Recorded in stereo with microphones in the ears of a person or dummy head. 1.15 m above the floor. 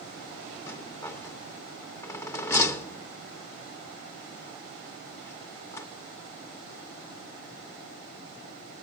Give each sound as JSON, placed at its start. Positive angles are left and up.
{"t": 0.7, "sound": "a rattle", "side_deg": 15, "distance_m": 0.6}